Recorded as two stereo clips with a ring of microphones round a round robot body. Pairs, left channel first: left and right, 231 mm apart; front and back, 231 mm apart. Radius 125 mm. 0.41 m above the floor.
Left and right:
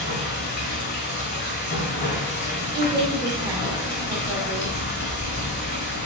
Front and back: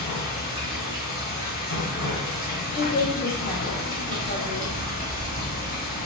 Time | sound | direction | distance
0.0 | running water | 55° left | 1.5 m
2.8 | a woman speaking | 35° right | 0.8 m